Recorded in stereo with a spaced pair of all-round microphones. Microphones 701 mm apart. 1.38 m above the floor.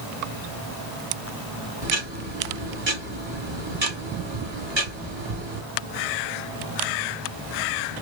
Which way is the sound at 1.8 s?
40° right (ahead or behind).